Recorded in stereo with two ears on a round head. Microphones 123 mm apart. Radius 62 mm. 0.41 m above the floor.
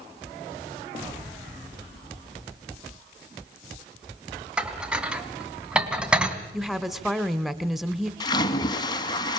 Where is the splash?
30° left (ahead or behind), 1.5 m.